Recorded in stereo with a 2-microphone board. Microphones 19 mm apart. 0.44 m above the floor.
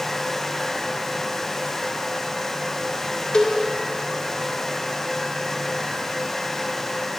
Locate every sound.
3.3 s a cowbell: 50° left (ahead or behind), 0.7 m